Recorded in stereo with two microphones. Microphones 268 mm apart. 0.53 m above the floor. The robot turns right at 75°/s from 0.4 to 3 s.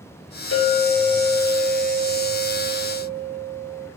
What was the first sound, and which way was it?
A clink, 120° left.